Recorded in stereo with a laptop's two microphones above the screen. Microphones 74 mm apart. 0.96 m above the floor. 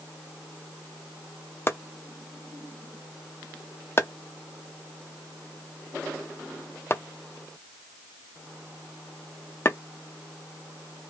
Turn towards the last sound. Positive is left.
turn(degrees=35)  # may be behind; listen again after turning